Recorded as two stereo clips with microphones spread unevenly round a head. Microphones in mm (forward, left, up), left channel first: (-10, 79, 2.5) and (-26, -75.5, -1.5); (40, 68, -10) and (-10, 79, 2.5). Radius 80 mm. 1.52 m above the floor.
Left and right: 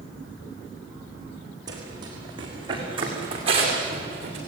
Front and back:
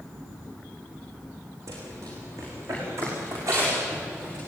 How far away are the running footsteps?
About 5.5 m.